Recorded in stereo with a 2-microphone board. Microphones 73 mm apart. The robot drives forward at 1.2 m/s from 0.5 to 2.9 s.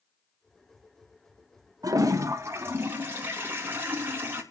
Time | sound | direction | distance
1.8 | a toilet flushing | 55° right (ahead or behind) | 1.1 m